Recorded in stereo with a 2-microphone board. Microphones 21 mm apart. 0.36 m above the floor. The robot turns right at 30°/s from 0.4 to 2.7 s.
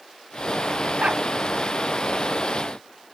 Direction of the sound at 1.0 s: 90° right.